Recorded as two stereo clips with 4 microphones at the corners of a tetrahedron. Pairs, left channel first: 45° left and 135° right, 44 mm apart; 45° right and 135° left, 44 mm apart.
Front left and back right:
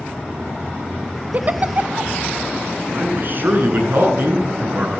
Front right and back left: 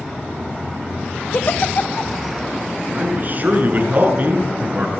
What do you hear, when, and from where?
1.3 s a giggle: 85° right, 0.7 m
2.9 s a man speaking: 175° right, 8.5 m